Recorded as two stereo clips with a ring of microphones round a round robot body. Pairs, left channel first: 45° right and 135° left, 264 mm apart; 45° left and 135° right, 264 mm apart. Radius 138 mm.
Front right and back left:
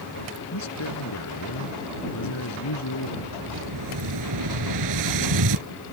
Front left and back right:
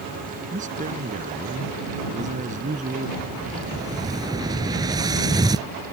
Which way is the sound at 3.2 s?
150° left.